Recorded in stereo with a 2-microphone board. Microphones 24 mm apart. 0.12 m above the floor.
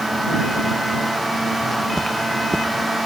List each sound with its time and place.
1.6 s footsteps: 20° left (ahead or behind); by 2.9 s 30° left (ahead or behind)